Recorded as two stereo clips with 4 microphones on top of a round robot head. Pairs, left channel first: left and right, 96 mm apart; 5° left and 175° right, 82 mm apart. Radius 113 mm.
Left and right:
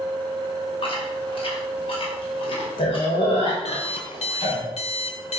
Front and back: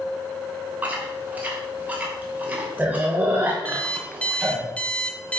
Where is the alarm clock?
80° left, 1.2 m.